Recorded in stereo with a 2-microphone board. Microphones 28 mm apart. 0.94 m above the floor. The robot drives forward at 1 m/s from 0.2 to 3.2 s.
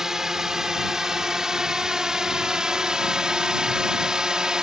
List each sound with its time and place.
0.0 s a drone: 25° right (ahead or behind); by 4.6 s 30° right (ahead or behind)